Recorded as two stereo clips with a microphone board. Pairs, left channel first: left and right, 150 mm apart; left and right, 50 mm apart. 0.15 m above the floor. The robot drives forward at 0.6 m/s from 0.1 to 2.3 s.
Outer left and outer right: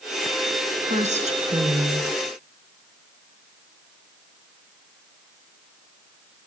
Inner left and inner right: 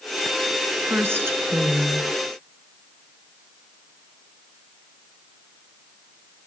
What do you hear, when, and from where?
0.9 s a woman speaking: 50° right (ahead or behind), 2 m; by 2.1 s 45° right (ahead or behind), 2.5 m